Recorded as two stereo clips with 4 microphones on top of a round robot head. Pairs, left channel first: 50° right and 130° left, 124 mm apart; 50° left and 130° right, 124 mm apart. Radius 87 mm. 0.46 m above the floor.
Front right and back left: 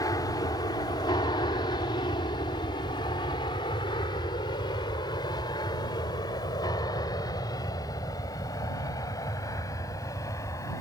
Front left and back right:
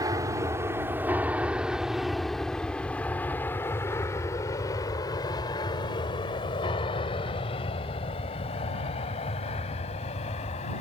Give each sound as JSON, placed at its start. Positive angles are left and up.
{"t": 0.0, "sound": "an aircraft", "azimuth_deg": -90}